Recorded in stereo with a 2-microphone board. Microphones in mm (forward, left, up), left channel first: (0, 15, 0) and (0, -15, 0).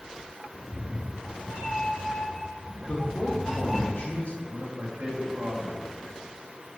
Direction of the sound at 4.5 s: 65° right (ahead or behind).